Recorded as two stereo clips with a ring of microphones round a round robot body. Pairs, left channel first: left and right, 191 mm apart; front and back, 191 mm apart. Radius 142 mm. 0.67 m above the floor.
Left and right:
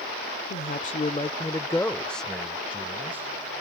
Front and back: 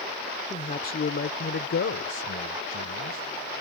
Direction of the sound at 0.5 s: 55° left.